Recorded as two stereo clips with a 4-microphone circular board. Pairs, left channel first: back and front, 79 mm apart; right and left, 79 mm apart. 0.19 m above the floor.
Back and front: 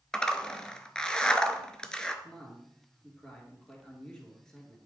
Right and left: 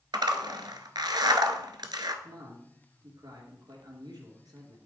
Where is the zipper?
100° left, 0.9 m.